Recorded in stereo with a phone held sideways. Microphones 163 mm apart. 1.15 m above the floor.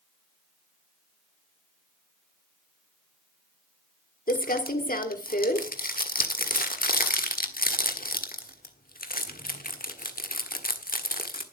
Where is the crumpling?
65° left (ahead or behind), 1.4 m.